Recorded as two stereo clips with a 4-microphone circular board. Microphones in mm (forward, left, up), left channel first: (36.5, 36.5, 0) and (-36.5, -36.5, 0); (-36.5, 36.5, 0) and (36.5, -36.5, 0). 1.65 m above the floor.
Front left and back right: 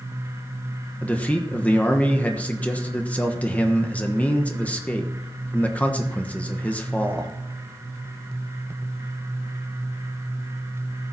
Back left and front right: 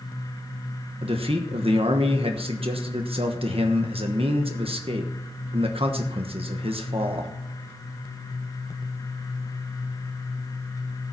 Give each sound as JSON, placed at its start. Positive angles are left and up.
{"t": 1.0, "sound": "a man speaking", "azimuth_deg": -30, "distance_m": 1.2}